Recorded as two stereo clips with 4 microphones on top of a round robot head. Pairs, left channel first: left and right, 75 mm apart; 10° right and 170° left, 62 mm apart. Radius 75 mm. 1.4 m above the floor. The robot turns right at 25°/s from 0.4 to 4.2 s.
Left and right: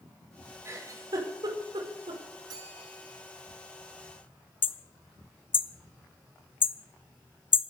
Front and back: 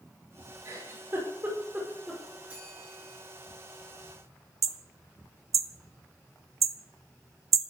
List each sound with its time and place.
0.7 s a giggle: 140° right, 5.5 m; by 2.2 s 105° right, 5.5 m
2.5 s a bell: 120° right, 8 m; by 3.2 s 100° right, 8 m
4.6 s hammering: 145° left, 0.5 m